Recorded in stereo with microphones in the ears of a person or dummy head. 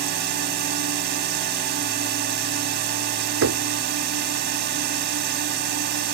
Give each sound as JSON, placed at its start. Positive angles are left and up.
{"t": 0.0, "sound": "a drone", "side_deg": -50}
{"t": 3.4, "sound": "knocking", "side_deg": -70}